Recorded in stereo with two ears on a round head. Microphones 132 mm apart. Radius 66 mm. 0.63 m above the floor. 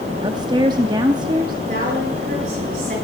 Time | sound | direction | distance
0.2 | a woman speaking | 30° right (ahead or behind) | 0.7 m
1.7 | a woman speaking | 60° right (ahead or behind) | 8.5 m